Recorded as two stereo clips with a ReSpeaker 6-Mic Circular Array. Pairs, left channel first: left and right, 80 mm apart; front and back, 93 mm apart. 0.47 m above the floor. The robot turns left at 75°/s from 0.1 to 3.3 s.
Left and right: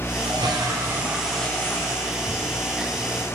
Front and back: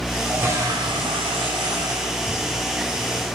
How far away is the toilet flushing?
About 3.5 m.